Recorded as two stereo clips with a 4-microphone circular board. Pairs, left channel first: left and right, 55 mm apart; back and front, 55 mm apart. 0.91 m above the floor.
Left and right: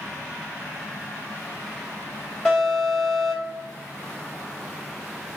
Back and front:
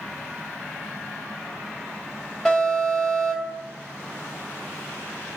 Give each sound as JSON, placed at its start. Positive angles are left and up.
{"t": 2.5, "sound": "an alarm", "azimuth_deg": 130, "distance_m": 1.5}